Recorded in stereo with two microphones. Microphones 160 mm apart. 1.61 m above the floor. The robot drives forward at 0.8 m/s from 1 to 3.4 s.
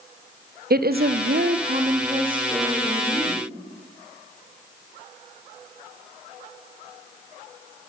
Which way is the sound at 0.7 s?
65° right (ahead or behind).